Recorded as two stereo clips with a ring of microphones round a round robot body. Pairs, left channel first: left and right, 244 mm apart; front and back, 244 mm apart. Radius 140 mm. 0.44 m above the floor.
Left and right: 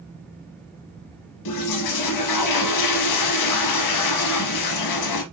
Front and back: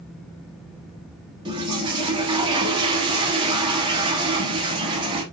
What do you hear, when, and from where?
1.4 s a toilet flushing: 105° left, 0.7 m